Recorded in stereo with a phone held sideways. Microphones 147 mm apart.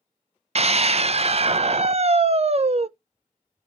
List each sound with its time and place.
0.6 s a scream: 45° right (ahead or behind), 0.6 m